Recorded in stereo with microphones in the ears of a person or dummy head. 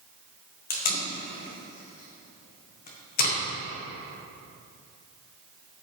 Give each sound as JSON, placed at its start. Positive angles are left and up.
{"t": 0.7, "sound": "tape being pulled", "side_deg": 55, "distance_m": 1.3}